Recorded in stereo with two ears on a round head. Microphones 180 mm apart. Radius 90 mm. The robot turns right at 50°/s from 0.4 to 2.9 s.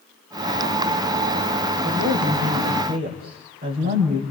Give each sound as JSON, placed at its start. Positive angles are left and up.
{"t": 1.8, "sound": "a woman speaking", "azimuth_deg": -100, "distance_m": 5.5}